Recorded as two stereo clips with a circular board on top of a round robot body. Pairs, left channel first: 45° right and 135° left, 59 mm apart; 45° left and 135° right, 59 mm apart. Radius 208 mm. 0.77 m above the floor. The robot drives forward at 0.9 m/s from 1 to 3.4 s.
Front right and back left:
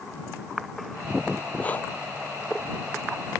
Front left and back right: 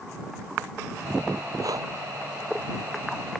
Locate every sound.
1.6 s breathing: 110° right